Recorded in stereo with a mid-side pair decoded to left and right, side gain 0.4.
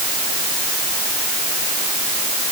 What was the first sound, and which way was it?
Only background noise.